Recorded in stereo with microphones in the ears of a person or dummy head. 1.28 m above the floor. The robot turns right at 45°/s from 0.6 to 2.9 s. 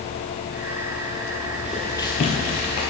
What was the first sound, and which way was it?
Footsteps, 10° right (ahead or behind).